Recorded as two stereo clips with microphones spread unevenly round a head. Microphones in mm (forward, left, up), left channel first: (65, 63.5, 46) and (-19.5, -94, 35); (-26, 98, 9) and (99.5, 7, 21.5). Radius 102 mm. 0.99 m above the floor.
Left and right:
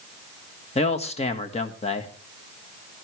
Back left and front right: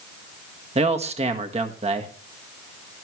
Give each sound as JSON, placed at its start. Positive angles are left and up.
{"t": 0.8, "sound": "a man speaking", "azimuth_deg": 10, "distance_m": 1.6}